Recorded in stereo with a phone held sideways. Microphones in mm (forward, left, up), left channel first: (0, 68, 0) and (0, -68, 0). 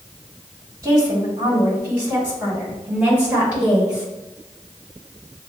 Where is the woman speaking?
25° right (ahead or behind), 1.8 m; by 4.1 s 5° right (ahead or behind), 3.5 m.